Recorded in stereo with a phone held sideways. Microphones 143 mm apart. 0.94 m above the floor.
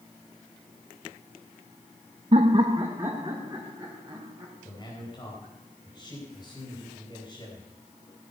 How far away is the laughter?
About 0.5 m.